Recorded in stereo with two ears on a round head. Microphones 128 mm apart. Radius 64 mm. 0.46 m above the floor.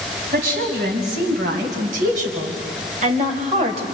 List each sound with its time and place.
0.3 s a woman speaking: 70° right (ahead or behind), 4 m; by 3.8 s 45° right (ahead or behind), 2.5 m